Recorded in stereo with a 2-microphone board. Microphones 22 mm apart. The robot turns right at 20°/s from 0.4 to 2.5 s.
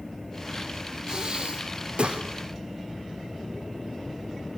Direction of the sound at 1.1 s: 30° right (ahead or behind).